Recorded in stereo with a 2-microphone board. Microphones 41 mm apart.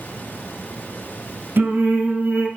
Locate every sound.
1.6 s singing: 55° right (ahead or behind), 1.9 m